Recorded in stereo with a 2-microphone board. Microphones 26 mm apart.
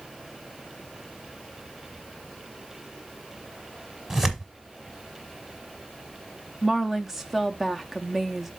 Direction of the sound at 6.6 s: 10° right (ahead or behind).